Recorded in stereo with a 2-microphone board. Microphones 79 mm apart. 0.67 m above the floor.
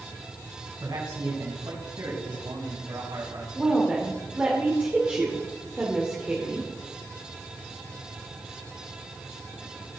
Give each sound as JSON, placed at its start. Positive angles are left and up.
{"t": 0.8, "sound": "a man speaking", "side_deg": -60, "distance_m": 5.5}
{"t": 3.5, "sound": "a woman speaking", "side_deg": -20, "distance_m": 2.0}